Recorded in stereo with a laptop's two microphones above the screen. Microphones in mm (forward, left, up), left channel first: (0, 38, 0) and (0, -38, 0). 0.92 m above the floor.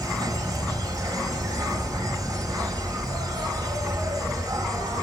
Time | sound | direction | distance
0.0 | an insect | 50° right (ahead or behind) | 1.5 m